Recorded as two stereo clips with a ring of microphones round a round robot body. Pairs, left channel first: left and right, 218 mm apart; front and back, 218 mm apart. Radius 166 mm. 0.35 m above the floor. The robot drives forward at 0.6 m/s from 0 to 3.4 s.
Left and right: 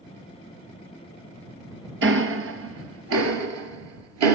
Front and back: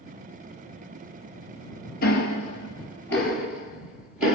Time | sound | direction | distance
2.0 | ticking | 60° right | 1.6 m